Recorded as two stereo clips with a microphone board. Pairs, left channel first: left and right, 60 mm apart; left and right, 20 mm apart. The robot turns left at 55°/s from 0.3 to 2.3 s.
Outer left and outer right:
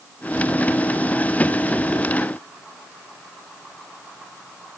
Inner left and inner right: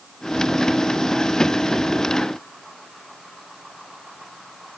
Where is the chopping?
I don't hear chopping.